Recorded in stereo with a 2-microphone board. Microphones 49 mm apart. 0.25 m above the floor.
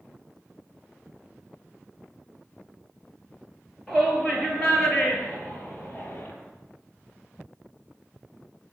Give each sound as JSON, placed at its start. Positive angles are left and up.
{"t": 3.9, "sound": "a shout", "side_deg": 10, "distance_m": 5.5}